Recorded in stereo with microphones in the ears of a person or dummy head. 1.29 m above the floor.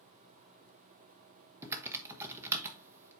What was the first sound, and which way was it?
Typing on a keyboard, 15° right (ahead or behind).